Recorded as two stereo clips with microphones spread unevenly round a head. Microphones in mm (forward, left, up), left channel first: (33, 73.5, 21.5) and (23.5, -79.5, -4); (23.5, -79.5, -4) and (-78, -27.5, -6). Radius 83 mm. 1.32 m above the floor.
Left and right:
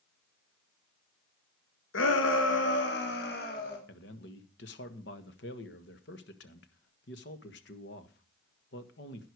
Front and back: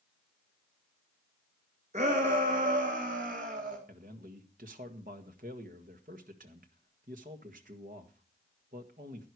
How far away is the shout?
About 1.7 m.